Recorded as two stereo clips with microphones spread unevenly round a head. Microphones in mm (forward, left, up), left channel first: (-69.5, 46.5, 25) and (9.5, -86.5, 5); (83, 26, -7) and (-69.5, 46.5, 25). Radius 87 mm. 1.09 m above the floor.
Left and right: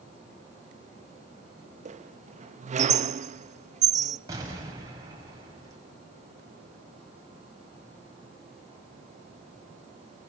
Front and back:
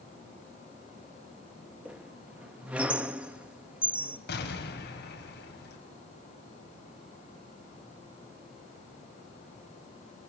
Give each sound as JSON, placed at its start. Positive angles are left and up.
{"t": 1.9, "sound": "a squeak", "azimuth_deg": -110, "distance_m": 0.6}
{"t": 4.3, "sound": "an explosion", "azimuth_deg": 15, "distance_m": 5.0}